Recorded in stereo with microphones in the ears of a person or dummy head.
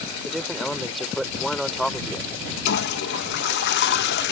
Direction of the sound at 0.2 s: Centre (ahead or behind).